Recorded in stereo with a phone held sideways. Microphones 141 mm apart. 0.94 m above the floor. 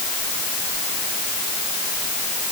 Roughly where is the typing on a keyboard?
I don't hear typing on a keyboard.